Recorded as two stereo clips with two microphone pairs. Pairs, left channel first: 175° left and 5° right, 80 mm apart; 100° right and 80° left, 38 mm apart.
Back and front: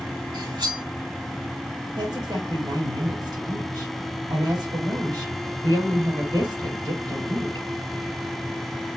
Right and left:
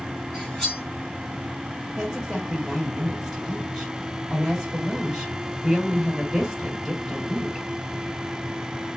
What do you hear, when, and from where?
0.3 s cutlery clinking: 15° right, 3.5 m
2.0 s a woman speaking: 5° left, 3.5 m